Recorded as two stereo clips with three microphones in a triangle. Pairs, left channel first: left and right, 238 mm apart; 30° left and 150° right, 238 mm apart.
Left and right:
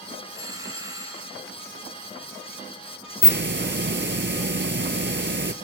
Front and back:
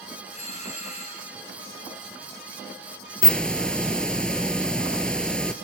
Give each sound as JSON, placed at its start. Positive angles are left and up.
{"t": 0.3, "sound": "a doorbell", "azimuth_deg": -20, "distance_m": 3.0}
{"t": 3.2, "sound": "a hiss", "azimuth_deg": -55, "distance_m": 1.1}